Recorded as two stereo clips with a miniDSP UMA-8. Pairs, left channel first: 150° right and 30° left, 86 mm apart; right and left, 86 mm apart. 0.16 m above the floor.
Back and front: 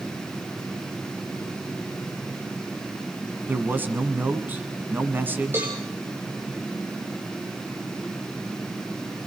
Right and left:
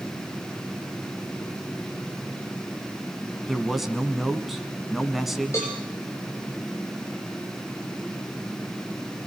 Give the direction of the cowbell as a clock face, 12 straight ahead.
1 o'clock.